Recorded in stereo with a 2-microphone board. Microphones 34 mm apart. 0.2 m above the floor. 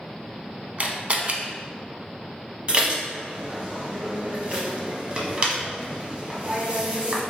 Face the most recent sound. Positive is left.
turn(degrees=-35)  # may be behind; listen again after turning